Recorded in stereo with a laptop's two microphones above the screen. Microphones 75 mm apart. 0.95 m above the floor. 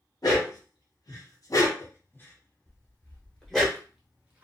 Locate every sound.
0.2 s a dog barking: 60° left (ahead or behind), 1.0 m; by 3.7 s centre (ahead or behind), 1.3 m
2.7 s footsteps: 30° left (ahead or behind), 1.1 m; by 4.5 s 20° right (ahead or behind), 0.9 m